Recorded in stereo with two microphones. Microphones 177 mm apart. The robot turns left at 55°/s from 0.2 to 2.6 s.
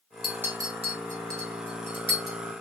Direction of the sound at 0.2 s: Centre (ahead or behind).